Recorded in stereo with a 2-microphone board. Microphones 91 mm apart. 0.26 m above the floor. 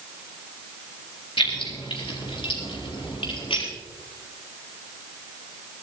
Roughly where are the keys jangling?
Left.